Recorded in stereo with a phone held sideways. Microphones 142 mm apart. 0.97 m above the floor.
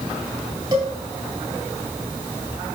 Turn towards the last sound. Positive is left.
turn(degrees=-30)  # may be behind; listen again after turning